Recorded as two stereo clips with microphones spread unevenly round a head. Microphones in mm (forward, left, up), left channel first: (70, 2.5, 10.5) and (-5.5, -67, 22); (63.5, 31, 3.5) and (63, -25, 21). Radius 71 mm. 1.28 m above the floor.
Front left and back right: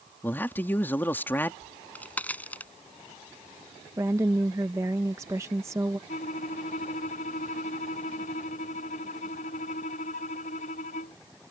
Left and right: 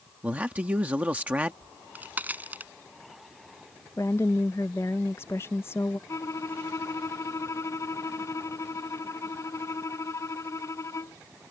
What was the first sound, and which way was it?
A man speaking, 30° right.